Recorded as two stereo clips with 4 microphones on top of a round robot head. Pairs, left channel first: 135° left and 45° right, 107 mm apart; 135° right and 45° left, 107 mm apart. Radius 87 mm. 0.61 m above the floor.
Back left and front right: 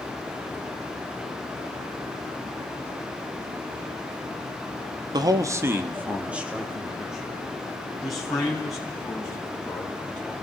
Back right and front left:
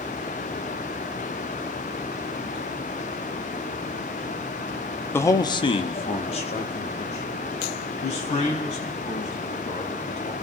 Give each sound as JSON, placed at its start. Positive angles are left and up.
{"t": 5.1, "sound": "a man speaking", "azimuth_deg": -75, "distance_m": 0.9}